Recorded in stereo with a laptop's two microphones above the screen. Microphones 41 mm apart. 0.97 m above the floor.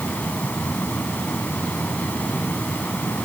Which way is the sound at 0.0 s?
45° left (ahead or behind).